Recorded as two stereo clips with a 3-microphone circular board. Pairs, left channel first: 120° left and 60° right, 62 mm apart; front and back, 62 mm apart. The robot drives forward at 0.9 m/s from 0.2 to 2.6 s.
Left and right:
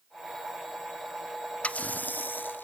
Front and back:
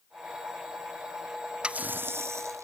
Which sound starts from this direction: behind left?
A running tap, at 1.6 s.